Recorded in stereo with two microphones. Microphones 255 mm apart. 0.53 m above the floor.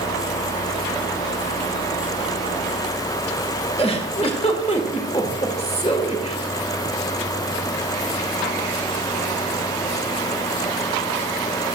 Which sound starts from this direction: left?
A giggle, at 3.8 s.